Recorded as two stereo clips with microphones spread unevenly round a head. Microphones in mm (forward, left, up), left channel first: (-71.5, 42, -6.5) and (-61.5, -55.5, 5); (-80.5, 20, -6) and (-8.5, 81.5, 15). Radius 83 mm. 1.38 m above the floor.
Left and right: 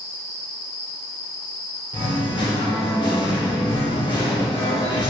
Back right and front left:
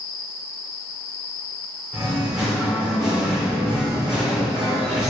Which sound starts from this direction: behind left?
Singing, at 1.9 s.